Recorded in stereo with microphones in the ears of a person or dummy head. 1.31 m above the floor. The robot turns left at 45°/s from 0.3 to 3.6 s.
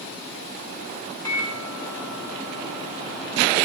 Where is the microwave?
160° left, 1.3 m; by 3.5 s 55° left, 1.3 m.